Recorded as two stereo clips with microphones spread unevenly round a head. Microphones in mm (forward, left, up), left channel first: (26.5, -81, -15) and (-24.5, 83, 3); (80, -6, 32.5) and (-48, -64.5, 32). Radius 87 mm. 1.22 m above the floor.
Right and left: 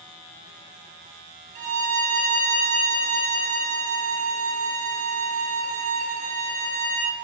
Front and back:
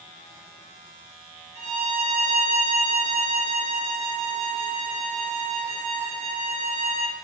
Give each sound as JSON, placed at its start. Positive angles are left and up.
{"t": 1.6, "sound": "a violin", "azimuth_deg": 155, "distance_m": 0.7}